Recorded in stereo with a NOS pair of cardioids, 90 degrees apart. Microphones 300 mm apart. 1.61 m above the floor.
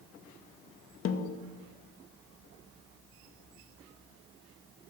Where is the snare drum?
50° left, 0.6 m.